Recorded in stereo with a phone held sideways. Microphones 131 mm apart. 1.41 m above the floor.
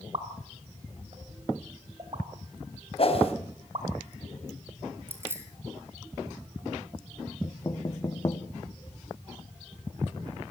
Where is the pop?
45° right (ahead or behind), 3.5 m.